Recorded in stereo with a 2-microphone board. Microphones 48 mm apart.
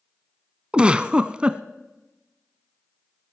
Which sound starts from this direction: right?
A giggle, at 0.7 s.